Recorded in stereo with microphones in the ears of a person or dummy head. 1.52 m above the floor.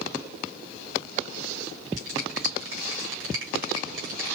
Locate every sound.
2.0 s a finger snap: 70° right (ahead or behind), 3 m